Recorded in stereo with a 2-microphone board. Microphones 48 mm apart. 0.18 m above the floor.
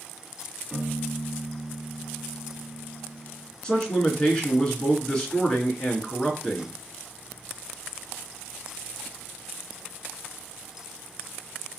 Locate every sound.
0.7 s a piano: 5° right (ahead or behind), 1.5 m
3.6 s a man speaking: 20° left (ahead or behind), 2.5 m